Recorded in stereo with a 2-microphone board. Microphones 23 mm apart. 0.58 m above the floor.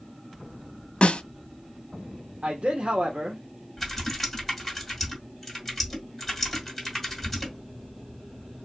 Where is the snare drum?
60° left (ahead or behind), 0.6 m.